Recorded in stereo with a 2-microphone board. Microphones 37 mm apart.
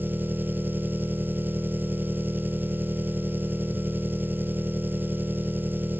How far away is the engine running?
About 1.0 m.